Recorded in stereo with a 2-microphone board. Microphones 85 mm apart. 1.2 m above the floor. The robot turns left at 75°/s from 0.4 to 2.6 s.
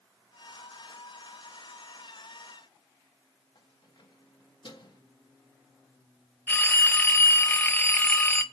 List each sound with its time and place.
3.5 s keys jangling: 55° left (ahead or behind), 1.5 m
6.5 s a phone ringing: 20° left (ahead or behind), 0.6 m